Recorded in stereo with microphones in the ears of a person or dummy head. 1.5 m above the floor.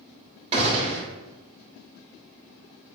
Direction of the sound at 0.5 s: 30° right (ahead or behind).